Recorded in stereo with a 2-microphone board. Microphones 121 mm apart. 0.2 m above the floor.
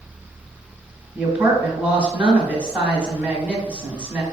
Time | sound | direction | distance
1.1 | a woman speaking | 10° right (ahead or behind) | 1.2 m